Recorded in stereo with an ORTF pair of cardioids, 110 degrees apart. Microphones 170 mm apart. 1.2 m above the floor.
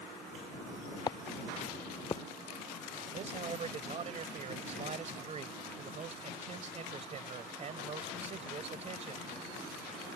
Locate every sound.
1.1 s footsteps: 25° left; by 2.2 s 30° left
3.1 s a man speaking: 40° right